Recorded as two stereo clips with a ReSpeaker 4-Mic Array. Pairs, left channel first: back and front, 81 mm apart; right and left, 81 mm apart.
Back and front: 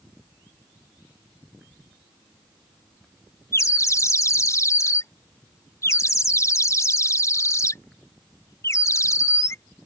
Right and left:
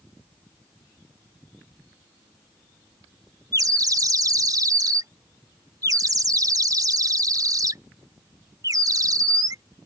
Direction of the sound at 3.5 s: 130° left.